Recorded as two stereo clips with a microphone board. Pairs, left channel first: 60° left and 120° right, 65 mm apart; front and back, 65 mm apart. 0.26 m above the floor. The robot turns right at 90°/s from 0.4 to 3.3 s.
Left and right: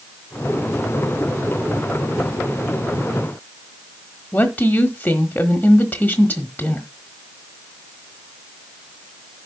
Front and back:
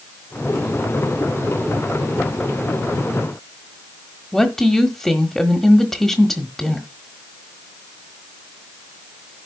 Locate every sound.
4.3 s a woman speaking: 80° left, 1.2 m